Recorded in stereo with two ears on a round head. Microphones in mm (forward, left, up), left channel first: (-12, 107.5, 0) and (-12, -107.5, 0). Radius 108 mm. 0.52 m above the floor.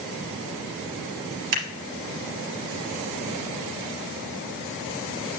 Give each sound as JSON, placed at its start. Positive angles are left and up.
{"t": 1.5, "sound": "scissors", "side_deg": -65, "distance_m": 3.0}